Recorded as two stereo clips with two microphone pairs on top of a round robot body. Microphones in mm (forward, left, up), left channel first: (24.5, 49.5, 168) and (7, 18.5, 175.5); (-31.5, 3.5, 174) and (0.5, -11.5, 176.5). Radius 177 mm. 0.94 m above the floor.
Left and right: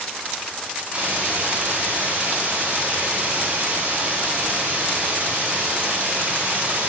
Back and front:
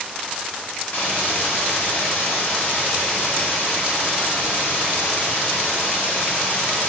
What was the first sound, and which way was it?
A hiss, 175° right.